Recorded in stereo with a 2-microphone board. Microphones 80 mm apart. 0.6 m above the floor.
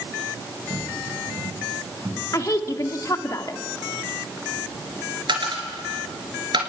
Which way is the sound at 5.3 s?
75° right (ahead or behind).